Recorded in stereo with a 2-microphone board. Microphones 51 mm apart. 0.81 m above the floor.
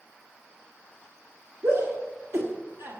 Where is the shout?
70° right (ahead or behind), 1.6 m; by 3.0 s 45° right (ahead or behind), 1.4 m.